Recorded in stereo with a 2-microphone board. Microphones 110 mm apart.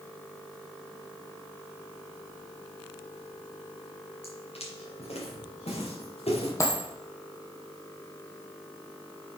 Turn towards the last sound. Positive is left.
turn(degrees=30)  # may be behind; listen again after turning